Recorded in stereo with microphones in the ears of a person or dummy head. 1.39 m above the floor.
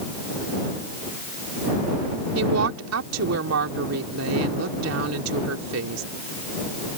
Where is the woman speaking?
85° right.